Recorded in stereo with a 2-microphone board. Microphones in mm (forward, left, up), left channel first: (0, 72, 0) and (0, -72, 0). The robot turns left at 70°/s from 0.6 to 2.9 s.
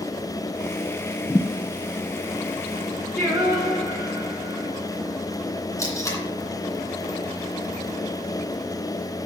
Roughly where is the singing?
Centre.